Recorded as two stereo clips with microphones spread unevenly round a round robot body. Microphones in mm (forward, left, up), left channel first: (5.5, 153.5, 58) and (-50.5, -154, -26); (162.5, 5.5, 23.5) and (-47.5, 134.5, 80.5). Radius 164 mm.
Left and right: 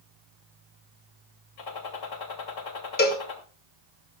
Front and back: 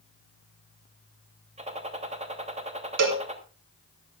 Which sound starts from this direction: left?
A gunshot, at 1.6 s.